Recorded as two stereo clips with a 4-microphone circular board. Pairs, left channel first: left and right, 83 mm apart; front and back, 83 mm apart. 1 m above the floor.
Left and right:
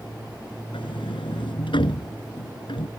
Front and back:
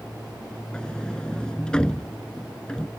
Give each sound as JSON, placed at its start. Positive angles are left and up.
{"t": 0.7, "sound": "a sliding door", "azimuth_deg": 80}